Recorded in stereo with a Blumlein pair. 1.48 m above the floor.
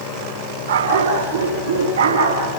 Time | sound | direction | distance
0.7 | a dog barking | 65° right | 6 m